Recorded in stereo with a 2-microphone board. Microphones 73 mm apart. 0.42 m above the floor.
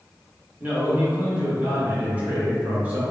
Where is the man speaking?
25° right (ahead or behind), 0.9 m.